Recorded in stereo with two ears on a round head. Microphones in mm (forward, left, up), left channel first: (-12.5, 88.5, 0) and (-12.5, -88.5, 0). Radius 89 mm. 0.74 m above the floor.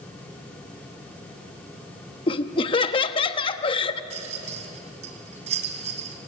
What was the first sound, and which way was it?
Laughter, 25° left (ahead or behind).